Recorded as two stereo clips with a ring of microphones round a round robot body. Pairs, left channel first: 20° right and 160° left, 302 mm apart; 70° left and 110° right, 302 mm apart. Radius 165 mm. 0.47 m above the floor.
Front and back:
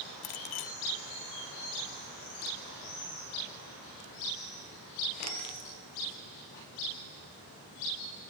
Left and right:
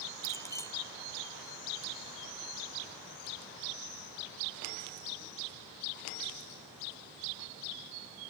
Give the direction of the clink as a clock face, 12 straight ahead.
12 o'clock.